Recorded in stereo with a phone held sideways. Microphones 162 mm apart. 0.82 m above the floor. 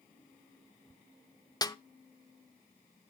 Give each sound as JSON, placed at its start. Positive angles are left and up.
{"t": 1.6, "sound": "a snare drum", "side_deg": 25, "distance_m": 0.5}